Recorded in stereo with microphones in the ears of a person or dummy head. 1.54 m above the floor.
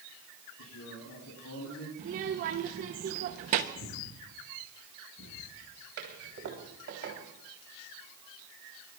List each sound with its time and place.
0.6 s a man speaking: 85° left, 9 m
2.0 s a child speaking: 35° right (ahead or behind), 0.9 m
3.8 s breathing: 70° left (ahead or behind), 5 m
6.0 s a toilet flushing: 60° right (ahead or behind), 3.5 m